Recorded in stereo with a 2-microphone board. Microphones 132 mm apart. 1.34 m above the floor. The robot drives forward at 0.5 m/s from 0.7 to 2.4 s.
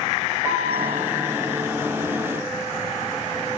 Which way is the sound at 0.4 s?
20° right (ahead or behind).